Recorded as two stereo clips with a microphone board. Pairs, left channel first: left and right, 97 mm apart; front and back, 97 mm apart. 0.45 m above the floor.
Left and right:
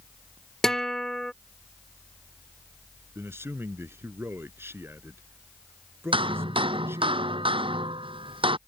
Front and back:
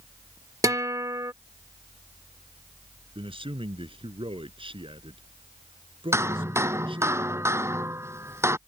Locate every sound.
0.6 s a guitar: 170° left
3.1 s a man speaking: 155° right
6.1 s hammering: 115° right